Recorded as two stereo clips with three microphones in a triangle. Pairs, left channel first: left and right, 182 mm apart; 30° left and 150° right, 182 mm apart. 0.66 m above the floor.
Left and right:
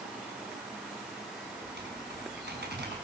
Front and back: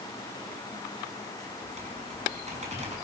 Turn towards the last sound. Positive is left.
turn(degrees=-100)